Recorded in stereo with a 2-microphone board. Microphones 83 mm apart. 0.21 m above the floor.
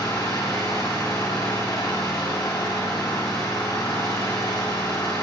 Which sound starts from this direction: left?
An engine running, at 0.0 s.